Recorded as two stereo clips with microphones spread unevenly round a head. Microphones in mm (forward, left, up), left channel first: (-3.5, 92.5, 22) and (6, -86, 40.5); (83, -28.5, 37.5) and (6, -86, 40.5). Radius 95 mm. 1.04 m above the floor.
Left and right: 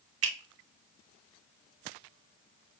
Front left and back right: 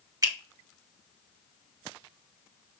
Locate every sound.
0.2 s a finger snap: 90° right, 1.7 m